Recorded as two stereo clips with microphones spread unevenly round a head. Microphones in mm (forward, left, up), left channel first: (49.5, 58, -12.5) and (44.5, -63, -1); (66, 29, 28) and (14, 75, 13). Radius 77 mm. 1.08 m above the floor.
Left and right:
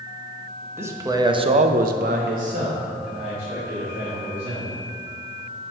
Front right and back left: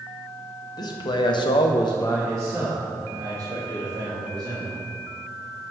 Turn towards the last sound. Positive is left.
turn(degrees=-165)